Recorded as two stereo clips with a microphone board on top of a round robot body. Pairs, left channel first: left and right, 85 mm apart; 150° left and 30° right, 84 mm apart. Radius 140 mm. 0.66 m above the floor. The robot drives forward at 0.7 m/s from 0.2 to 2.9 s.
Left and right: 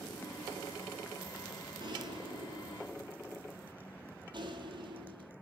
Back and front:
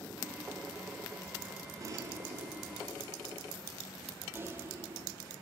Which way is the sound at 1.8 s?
70° right.